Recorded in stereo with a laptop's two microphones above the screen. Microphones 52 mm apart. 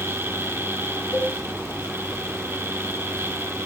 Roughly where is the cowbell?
Left.